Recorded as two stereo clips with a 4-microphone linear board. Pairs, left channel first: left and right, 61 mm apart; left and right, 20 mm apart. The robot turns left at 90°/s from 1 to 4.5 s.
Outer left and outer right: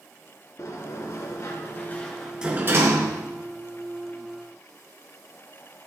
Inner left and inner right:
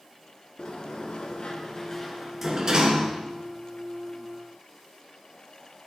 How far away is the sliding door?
About 2.5 m.